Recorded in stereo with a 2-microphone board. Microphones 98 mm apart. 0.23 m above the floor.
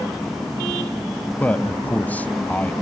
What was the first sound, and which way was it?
A man speaking, 15° left (ahead or behind).